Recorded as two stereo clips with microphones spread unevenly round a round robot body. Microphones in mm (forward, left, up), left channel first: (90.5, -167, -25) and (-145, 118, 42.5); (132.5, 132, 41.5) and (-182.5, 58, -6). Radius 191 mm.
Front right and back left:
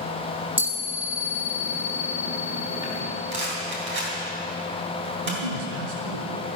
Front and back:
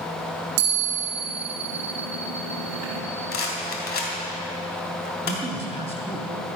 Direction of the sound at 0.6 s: 150° right.